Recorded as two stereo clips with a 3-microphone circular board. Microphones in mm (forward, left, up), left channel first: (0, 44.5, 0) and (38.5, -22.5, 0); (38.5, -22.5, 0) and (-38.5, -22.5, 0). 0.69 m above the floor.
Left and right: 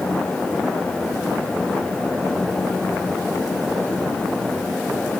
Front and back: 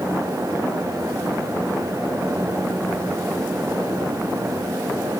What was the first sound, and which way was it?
Only background noise.